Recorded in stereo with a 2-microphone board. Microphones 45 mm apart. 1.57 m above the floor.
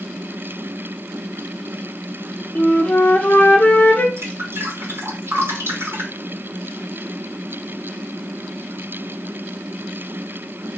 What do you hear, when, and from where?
2.5 s a flute: 35° left (ahead or behind), 1.1 m
4.2 s dripping: 75° right (ahead or behind), 4 m